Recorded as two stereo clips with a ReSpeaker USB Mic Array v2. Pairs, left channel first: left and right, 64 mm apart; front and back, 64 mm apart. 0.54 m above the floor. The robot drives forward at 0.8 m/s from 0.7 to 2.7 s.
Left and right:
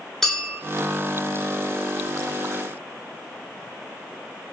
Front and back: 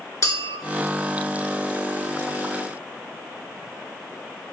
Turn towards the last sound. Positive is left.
turn(degrees=170)